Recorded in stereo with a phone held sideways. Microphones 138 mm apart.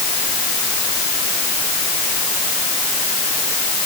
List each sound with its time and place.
Only background noise.